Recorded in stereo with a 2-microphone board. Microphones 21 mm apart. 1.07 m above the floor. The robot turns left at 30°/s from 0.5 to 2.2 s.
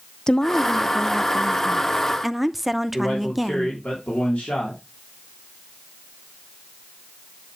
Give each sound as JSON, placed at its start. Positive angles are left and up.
{"t": 0.3, "sound": "a woman speaking", "azimuth_deg": 45, "distance_m": 0.6}
{"t": 2.9, "sound": "a man speaking", "side_deg": 75, "distance_m": 3.0}